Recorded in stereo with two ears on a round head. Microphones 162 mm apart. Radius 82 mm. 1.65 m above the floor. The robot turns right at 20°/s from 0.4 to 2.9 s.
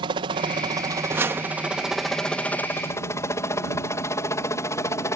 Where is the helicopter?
30° right (ahead or behind); by 5.2 s 15° left (ahead or behind).